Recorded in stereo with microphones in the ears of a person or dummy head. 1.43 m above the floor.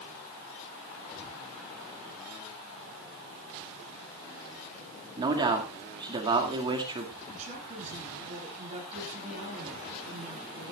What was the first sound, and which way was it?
A man speaking, 30° right (ahead or behind).